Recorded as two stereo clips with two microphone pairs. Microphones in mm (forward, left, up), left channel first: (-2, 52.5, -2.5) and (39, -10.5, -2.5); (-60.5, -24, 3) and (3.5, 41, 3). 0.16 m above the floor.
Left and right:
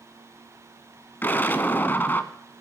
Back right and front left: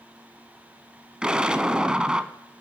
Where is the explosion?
115° left, 0.9 m.